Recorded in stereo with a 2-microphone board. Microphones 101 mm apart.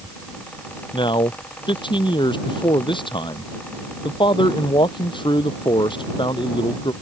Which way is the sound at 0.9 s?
55° left (ahead or behind).